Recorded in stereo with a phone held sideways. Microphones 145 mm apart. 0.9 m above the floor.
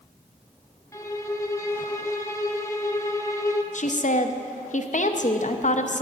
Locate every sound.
0.9 s a violin: 20° left (ahead or behind), 0.7 m
3.7 s a woman speaking: 55° left (ahead or behind), 0.7 m